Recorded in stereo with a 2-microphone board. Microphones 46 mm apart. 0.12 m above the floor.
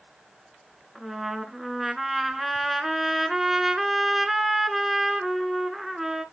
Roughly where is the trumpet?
Centre.